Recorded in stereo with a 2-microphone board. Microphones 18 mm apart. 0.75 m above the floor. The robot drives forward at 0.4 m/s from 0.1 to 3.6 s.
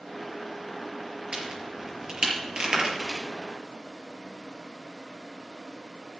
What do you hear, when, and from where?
1.3 s a crack: 50° right (ahead or behind), 5 m; by 3.2 s 45° right (ahead or behind), 5.5 m